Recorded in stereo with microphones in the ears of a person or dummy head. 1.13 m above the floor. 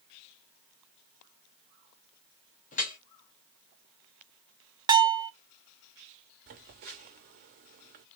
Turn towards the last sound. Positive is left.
turn(degrees=-45)  # may be behind; listen again after turning